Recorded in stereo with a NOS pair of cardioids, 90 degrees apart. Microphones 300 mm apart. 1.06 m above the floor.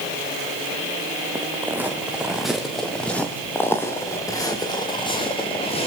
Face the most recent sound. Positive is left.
turn(degrees=20)